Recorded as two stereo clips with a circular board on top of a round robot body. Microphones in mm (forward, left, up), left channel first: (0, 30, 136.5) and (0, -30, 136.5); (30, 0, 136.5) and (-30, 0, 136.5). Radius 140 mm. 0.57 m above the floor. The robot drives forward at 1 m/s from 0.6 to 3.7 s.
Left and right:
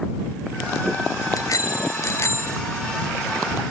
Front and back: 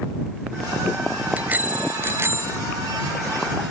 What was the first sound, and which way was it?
A bicycle bell, 115° left.